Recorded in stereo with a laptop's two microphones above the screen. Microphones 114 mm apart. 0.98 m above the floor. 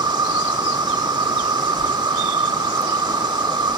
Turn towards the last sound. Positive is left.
turn(degrees=-40)  # may be behind; listen again after turning